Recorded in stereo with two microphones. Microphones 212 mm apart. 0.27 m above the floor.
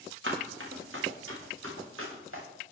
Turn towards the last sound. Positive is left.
turn(degrees=-85)